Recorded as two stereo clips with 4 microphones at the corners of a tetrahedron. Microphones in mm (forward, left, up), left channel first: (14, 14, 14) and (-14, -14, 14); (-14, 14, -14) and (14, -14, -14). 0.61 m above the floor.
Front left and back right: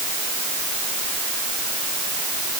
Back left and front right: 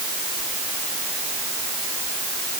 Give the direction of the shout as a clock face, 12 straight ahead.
No shout in this recording.